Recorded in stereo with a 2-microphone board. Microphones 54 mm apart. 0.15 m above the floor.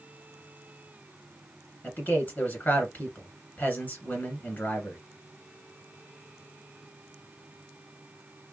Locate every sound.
1.8 s a man speaking: 35° left (ahead or behind), 1.5 m